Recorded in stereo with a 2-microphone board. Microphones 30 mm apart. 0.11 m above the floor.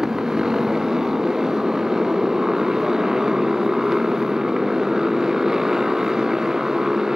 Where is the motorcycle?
20° right (ahead or behind).